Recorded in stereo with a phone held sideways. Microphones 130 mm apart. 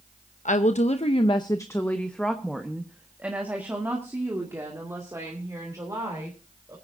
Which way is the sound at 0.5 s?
75° left (ahead or behind).